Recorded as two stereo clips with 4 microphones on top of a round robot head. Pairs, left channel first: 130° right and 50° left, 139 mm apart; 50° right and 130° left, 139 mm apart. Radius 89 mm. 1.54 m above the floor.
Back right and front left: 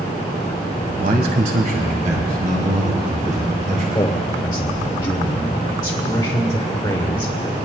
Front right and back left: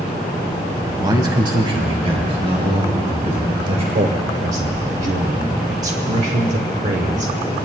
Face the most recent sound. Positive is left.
turn(degrees=165)